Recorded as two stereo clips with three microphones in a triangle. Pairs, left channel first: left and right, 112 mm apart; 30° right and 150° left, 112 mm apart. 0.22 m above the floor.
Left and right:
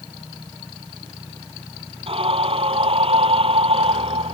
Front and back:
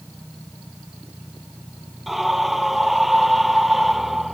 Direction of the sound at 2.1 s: 120° right.